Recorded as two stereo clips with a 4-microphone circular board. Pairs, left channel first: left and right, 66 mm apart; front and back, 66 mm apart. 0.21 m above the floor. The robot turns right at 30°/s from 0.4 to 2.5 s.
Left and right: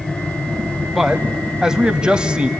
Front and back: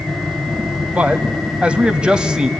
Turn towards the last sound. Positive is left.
turn(degrees=-125)